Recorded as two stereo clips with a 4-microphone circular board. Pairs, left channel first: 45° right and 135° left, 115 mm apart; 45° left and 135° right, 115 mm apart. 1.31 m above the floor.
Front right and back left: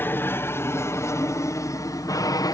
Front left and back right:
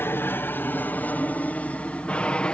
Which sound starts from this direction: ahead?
An aircraft, at 0.0 s.